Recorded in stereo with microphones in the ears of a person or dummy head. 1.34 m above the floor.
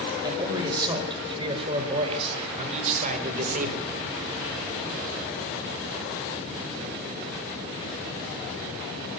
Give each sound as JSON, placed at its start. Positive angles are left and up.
{"t": 0.2, "sound": "a man speaking", "side_deg": -20, "distance_m": 6.0}